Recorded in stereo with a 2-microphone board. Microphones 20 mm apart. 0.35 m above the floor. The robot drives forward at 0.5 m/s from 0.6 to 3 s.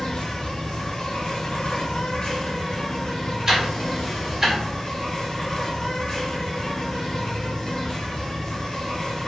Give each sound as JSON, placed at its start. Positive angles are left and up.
{"t": 0.0, "sound": "an insect", "side_deg": 60, "distance_m": 1.0}
{"t": 3.5, "sound": "ticking", "side_deg": -25, "distance_m": 1.5}